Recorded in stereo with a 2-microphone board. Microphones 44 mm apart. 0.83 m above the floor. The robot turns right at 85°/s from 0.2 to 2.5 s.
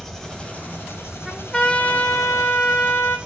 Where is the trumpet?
10° right, 3 m; by 3.2 s 100° left, 3 m.